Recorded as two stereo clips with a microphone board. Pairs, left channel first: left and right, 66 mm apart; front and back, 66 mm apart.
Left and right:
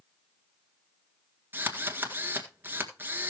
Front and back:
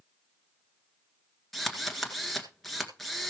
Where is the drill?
85° right, 1.8 m.